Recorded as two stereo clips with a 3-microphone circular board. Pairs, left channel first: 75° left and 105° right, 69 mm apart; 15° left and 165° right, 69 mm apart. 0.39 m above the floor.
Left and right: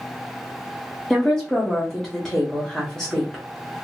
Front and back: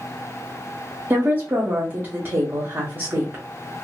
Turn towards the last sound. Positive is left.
turn(degrees=155)